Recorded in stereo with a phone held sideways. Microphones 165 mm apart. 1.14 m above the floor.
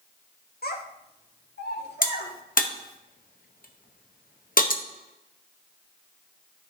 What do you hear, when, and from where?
0.6 s a child speaking: 70° left (ahead or behind), 1.3 m; by 2.3 s 85° left, 2.5 m
2.0 s a crack: 60° left (ahead or behind), 0.7 m